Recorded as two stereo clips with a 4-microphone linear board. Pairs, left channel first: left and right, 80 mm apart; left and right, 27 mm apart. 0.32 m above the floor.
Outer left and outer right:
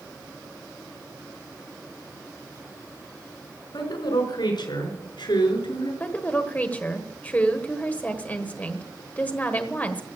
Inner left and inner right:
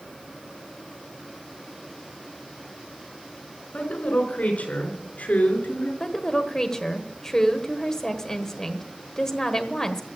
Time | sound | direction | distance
3.7 | a woman speaking | 70° left (ahead or behind) | 4.5 m
6.0 | a woman speaking | 20° left (ahead or behind) | 1.3 m